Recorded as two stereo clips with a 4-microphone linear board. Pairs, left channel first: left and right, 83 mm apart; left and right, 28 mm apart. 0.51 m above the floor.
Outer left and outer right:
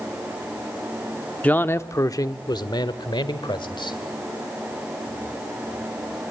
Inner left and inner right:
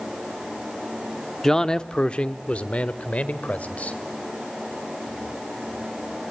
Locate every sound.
1.4 s a man speaking: 15° left (ahead or behind), 0.7 m; by 4.0 s 70° left (ahead or behind), 1.9 m